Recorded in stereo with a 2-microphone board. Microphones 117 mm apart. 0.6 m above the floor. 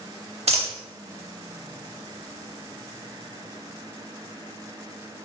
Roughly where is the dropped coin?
Right.